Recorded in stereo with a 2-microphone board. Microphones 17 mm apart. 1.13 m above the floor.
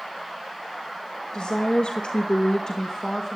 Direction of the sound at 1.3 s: 60° left (ahead or behind).